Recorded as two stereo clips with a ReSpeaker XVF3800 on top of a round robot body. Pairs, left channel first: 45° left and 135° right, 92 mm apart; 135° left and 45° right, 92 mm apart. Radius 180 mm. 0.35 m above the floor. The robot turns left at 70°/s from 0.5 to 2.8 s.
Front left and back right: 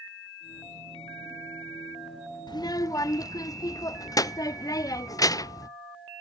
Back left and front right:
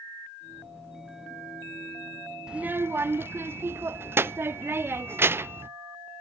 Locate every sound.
2.5 s a child speaking: 35° left, 0.5 m; by 5.7 s 10° left, 0.5 m